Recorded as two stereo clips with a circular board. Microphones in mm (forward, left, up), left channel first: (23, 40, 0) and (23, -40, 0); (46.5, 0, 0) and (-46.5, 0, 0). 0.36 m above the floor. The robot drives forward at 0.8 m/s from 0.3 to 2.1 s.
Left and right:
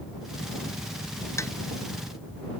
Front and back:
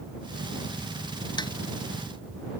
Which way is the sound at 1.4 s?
40° left.